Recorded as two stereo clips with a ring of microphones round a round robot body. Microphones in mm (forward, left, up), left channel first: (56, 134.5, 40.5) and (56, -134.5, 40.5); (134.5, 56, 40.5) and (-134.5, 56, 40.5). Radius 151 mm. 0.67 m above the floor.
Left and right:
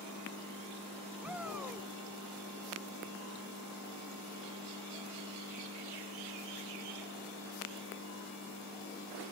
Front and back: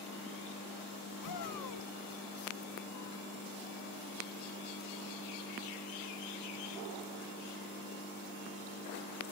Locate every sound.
1.2 s a shout: 5° right